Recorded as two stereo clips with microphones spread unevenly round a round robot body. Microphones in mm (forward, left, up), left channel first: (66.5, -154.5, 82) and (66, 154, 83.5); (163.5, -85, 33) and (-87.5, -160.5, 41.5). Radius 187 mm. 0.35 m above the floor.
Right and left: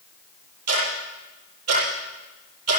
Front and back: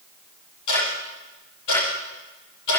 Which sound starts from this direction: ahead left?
Ticking, at 0.7 s.